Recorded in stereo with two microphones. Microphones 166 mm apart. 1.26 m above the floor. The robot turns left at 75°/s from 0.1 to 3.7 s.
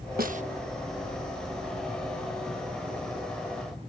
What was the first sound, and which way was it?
A snare drum, 60° right (ahead or behind).